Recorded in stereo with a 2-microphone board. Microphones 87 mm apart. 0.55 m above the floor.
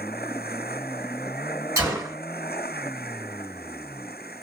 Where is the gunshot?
35° right (ahead or behind), 1.7 m.